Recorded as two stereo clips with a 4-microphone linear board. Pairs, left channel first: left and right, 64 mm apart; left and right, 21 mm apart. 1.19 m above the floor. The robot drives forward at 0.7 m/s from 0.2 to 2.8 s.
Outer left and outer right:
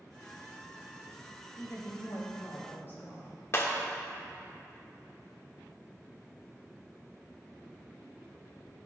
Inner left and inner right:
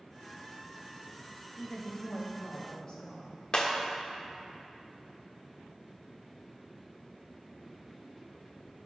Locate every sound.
1.6 s a woman speaking: 55° left (ahead or behind), 1.6 m; by 3.4 s 35° left (ahead or behind), 2 m
3.5 s breaking glass: 40° left (ahead or behind), 1.0 m